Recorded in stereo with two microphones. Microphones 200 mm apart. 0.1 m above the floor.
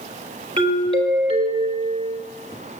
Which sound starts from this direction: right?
A doorbell, at 0.6 s.